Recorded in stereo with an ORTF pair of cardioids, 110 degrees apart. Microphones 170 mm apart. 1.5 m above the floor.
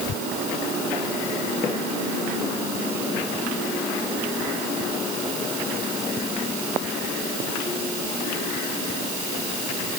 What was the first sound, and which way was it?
Only background noise.